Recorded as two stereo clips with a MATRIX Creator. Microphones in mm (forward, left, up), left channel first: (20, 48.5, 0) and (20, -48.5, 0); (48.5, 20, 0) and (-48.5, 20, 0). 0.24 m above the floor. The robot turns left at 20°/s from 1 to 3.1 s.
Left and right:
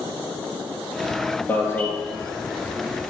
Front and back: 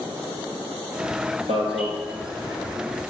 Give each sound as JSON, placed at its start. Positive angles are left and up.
{"t": 1.5, "sound": "an alarm", "azimuth_deg": 160, "distance_m": 2.5}